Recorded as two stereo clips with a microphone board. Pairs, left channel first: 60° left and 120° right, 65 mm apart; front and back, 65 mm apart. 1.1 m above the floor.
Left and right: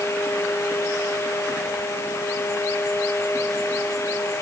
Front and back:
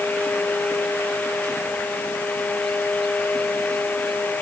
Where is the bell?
No bell in this recording.